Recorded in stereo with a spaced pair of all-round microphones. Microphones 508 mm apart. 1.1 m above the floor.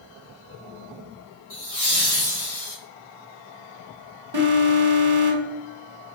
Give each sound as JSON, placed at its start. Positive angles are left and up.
{"t": 1.5, "sound": "laughter", "side_deg": 50, "distance_m": 2.0}
{"t": 4.3, "sound": "an alarm", "side_deg": -50, "distance_m": 0.9}